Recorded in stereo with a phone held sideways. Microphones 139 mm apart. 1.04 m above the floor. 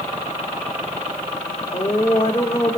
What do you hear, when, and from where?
1.7 s a woman speaking: 45° left (ahead or behind), 2.5 m